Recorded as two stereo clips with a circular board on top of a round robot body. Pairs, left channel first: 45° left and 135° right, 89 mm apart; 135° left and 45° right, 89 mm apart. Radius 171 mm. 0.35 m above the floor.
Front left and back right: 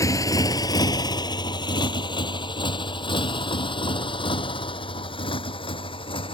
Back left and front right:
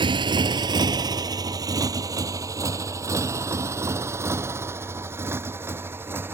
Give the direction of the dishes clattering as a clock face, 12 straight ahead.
No dishes clattering in this recording.